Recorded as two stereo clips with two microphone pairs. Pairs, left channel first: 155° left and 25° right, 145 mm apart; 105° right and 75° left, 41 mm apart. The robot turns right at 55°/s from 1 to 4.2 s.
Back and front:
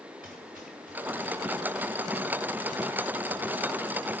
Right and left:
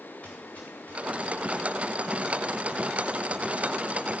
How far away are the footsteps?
About 5 m.